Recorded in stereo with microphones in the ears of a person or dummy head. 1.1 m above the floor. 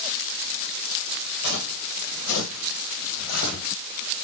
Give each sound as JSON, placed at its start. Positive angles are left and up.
{"t": 1.4, "sound": "footsteps", "side_deg": 55, "distance_m": 2.5}